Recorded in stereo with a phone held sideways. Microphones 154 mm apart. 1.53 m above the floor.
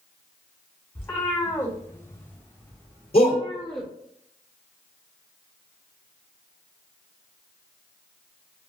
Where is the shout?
40° left (ahead or behind), 1.2 m.